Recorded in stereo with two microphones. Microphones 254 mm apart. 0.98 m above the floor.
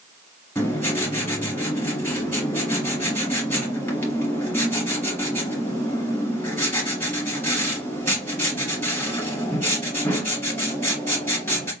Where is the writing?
10° left (ahead or behind), 2.5 m.